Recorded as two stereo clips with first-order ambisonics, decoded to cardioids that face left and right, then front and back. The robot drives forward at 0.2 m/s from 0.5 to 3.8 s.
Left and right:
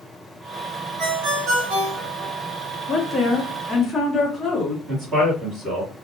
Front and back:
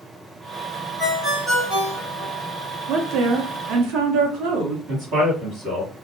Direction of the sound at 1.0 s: 80° right.